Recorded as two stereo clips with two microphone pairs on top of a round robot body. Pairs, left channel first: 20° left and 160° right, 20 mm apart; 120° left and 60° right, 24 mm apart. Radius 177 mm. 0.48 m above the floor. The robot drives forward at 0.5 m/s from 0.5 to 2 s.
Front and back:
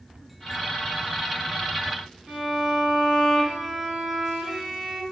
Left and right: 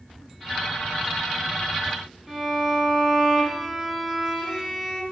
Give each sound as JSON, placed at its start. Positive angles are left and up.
{"t": 2.3, "sound": "a violin", "azimuth_deg": -160, "distance_m": 1.6}